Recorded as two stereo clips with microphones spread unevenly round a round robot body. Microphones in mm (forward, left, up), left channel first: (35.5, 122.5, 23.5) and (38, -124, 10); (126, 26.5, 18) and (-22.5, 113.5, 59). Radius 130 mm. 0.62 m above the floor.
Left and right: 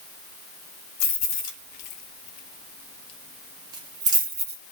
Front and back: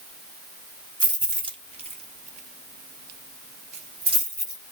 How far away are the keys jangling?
About 1.3 m.